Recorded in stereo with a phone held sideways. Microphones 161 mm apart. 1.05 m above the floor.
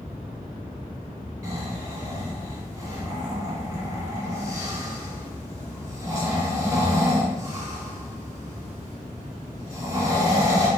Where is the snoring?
20° right (ahead or behind), 2.0 m.